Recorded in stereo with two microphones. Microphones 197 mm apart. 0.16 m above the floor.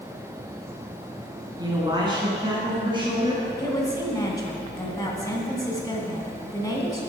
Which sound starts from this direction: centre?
A woman speaking, at 3.6 s.